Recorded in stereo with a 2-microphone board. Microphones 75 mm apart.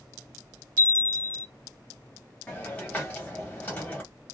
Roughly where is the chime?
Centre.